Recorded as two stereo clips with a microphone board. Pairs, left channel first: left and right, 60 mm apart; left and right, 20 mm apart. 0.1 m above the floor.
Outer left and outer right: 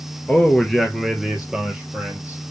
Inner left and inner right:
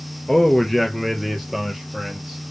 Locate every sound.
0.3 s a man speaking: 10° left (ahead or behind), 1.5 m; by 2.4 s 20° right (ahead or behind), 2.5 m